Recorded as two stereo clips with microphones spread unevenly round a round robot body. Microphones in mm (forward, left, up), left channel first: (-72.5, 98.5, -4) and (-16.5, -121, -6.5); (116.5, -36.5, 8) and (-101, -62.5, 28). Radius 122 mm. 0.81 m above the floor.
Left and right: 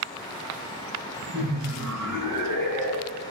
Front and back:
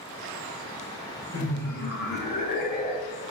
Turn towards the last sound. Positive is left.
turn(degrees=-50)